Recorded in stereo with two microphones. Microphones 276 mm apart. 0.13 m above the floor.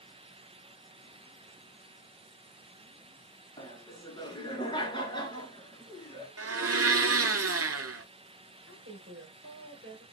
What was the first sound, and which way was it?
Laughter, 15° left (ahead or behind).